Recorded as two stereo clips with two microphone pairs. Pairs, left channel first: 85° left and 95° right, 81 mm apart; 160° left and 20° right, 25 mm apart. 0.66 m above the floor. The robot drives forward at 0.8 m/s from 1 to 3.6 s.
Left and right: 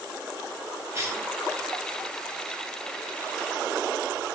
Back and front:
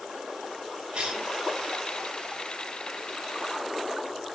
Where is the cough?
50° right, 1.4 m; by 1.3 s 60° right, 1.3 m.